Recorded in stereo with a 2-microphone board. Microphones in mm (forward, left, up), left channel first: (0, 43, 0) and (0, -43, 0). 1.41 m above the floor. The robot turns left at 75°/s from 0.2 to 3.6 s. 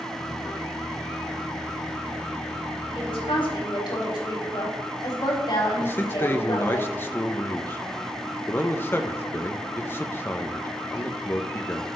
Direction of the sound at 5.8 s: 25° left (ahead or behind).